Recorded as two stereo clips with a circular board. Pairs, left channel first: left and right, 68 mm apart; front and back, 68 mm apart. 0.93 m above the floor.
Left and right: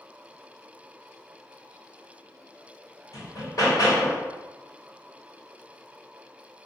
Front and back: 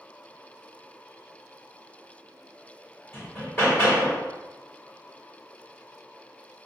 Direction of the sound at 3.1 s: 60° left.